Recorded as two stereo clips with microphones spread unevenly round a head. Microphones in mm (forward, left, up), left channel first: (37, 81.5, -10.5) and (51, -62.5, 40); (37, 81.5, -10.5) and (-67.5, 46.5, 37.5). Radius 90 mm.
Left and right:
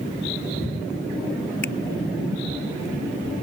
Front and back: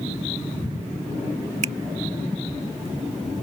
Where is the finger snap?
Straight behind.